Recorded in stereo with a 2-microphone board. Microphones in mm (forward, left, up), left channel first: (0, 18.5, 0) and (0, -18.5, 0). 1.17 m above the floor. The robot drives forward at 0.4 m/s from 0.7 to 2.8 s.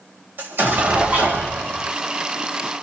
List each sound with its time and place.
0.4 s an explosion: 80° right, 2.5 m; by 1.9 s 75° right (ahead or behind), 2.5 m